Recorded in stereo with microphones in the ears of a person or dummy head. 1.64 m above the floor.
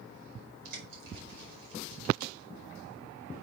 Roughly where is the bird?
Right.